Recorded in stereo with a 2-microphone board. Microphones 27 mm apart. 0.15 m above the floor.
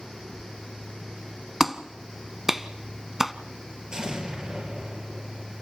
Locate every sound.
1.6 s a clap: 10° right (ahead or behind), 0.9 m
3.9 s an explosion: 30° right (ahead or behind), 3 m